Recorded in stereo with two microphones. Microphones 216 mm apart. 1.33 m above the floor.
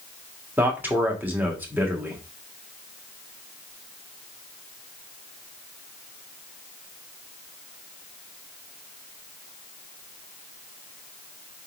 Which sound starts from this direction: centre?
A man speaking, at 0.6 s.